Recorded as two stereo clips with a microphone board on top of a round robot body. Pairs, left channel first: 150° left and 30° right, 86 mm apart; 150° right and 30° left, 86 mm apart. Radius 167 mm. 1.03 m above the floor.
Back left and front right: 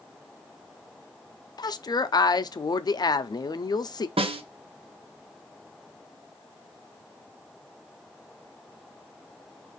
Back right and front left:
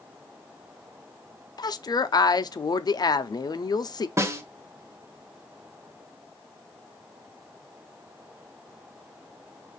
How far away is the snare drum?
About 0.6 m.